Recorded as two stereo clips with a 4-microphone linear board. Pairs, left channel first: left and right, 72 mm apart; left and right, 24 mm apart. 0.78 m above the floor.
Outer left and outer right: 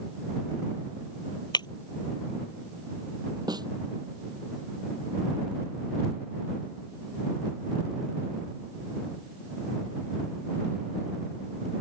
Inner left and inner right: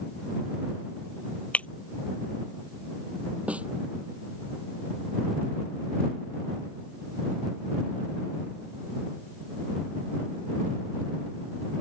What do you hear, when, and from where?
1.5 s breaking glass: 85° left
3.5 s a snare drum: 70° right (ahead or behind)